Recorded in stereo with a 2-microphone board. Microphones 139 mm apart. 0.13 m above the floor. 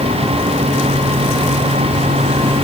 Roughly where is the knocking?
No knocking in this recording.